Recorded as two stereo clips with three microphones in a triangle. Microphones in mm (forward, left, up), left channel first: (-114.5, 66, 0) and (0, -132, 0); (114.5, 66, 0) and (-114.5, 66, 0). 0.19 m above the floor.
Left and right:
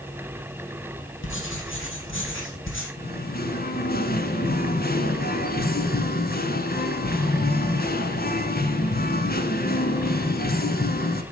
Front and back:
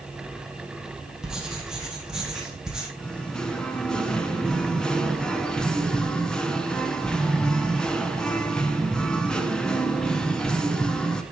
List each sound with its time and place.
1.2 s writing: 95° left, 3 m
3.0 s singing: 85° left, 1.2 m